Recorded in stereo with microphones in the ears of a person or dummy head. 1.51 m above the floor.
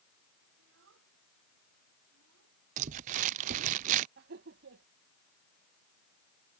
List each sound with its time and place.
0.6 s a child speaking: 80° right
2.8 s crumpling: 45° right (ahead or behind)
4.2 s laughter: 60° right (ahead or behind)